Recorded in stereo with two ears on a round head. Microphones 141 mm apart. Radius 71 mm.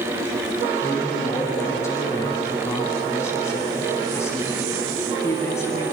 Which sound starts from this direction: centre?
A man speaking, at 0.8 s.